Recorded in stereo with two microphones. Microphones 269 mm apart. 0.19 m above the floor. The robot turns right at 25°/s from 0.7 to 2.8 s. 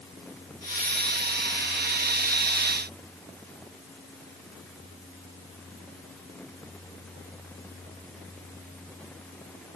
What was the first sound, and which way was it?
Only background noise.